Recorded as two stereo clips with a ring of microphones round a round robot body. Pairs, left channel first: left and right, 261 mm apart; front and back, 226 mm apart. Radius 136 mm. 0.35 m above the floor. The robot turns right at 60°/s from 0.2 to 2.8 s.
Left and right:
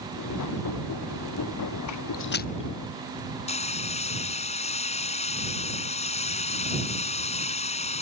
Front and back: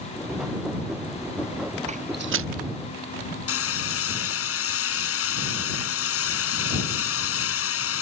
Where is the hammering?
20° left.